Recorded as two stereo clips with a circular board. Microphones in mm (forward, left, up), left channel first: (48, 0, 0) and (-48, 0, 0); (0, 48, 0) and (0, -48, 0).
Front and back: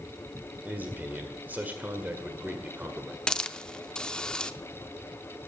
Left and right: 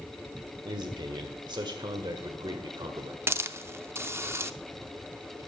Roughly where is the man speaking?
Behind right.